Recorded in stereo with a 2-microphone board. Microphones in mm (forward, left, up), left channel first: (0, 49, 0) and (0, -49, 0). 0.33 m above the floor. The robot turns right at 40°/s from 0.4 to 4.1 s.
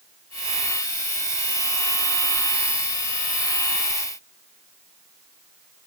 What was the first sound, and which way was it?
Only background noise.